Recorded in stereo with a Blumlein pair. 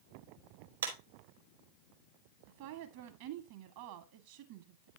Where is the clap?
70° right, 3.5 m.